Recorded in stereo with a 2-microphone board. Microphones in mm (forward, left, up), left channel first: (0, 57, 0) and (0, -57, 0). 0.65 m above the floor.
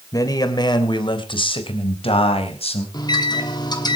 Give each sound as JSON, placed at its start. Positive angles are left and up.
{"t": 0.1, "sound": "a man speaking", "side_deg": 30, "distance_m": 2.5}
{"t": 2.9, "sound": "a microwave", "side_deg": 35, "distance_m": 2.5}